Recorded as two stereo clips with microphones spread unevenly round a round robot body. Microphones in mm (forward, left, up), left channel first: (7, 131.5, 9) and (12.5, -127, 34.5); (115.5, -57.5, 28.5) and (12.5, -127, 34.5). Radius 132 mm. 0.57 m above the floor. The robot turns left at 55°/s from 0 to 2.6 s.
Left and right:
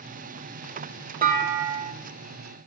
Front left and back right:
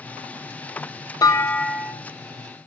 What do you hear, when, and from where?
1.2 s a clunk: 30° right, 0.8 m; by 1.9 s 70° right, 0.8 m